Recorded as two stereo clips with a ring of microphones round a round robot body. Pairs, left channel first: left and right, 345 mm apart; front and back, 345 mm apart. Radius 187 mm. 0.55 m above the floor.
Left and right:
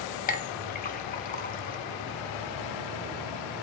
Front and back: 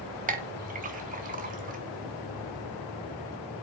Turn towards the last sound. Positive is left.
turn(degrees=135)